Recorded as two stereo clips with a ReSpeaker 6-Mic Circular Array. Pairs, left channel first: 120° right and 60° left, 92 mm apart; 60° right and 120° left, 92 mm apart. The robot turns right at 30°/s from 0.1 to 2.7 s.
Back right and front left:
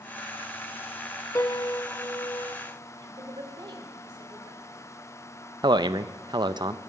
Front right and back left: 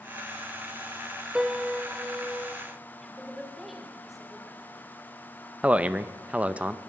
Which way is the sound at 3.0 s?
30° left.